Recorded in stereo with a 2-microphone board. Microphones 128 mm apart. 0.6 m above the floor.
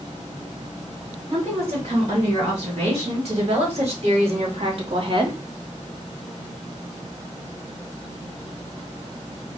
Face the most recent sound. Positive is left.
turn(degrees=-40)  # may be behind; listen again after turning